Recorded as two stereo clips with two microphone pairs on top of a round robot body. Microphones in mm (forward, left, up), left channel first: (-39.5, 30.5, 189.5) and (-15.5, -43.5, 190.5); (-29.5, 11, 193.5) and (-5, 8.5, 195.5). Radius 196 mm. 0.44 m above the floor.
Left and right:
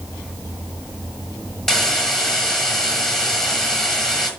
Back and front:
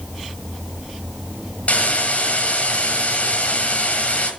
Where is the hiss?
170° right, 8 m.